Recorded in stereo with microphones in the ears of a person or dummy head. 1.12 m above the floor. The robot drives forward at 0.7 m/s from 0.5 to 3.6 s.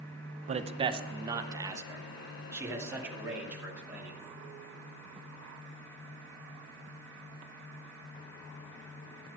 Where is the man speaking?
30° right (ahead or behind), 0.7 m; by 4.2 s 5° right (ahead or behind), 2.5 m.